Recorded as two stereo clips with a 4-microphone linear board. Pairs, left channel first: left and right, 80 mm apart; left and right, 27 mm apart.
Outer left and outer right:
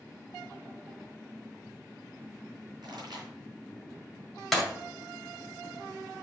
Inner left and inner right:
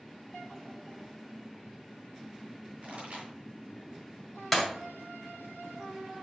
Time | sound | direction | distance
2.8 | a pop | 65° right (ahead or behind) | 4 m
4.5 | breaking glass | centre (ahead or behind) | 2.0 m